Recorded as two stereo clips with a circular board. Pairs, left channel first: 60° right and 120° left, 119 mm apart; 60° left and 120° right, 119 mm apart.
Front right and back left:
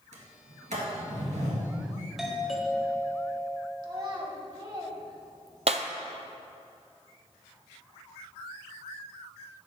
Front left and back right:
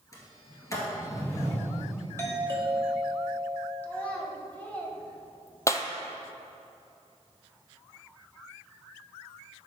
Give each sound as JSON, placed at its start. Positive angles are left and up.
{"t": 0.1, "sound": "a sliding door", "azimuth_deg": 125, "distance_m": 1.8}
{"t": 2.2, "sound": "a doorbell", "azimuth_deg": 40, "distance_m": 1.3}
{"t": 3.8, "sound": "a child speaking", "azimuth_deg": 130, "distance_m": 1.1}
{"t": 5.7, "sound": "breaking glass", "azimuth_deg": 120, "distance_m": 0.5}